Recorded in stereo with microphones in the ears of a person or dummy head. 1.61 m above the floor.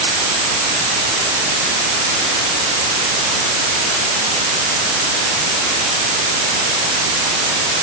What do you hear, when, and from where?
Only background noise.